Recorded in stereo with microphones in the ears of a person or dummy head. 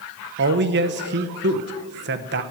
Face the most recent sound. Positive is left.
turn(degrees=-55)  # may be behind; listen again after turning